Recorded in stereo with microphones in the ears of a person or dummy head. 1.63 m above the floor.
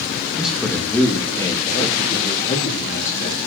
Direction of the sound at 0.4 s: 10° right (ahead or behind).